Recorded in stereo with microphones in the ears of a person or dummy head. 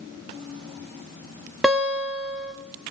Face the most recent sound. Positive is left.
turn(degrees=0)  # may be behind; listen again after turning